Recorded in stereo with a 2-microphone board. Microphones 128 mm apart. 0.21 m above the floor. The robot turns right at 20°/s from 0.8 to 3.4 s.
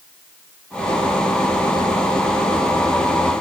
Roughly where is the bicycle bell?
I don't hear a bicycle bell.